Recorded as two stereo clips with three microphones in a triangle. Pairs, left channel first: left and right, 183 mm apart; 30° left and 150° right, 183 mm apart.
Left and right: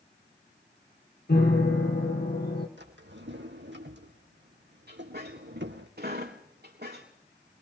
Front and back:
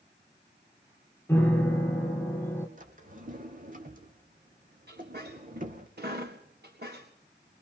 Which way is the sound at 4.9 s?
120° right.